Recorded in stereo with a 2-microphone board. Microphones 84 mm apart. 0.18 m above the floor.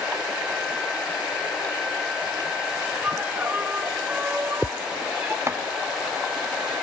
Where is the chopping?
35° right (ahead or behind), 1.0 m.